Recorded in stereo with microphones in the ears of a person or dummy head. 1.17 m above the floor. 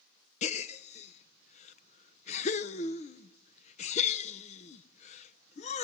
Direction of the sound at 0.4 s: 35° left (ahead or behind).